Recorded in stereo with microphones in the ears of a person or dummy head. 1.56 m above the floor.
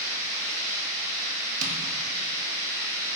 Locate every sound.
0.0 s running water: 65° right (ahead or behind), 1.8 m
1.6 s tapping: 40° right (ahead or behind), 0.6 m